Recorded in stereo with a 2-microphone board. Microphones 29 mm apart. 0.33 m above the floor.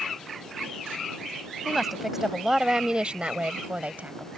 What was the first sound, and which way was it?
A woman speaking, 5° right (ahead or behind).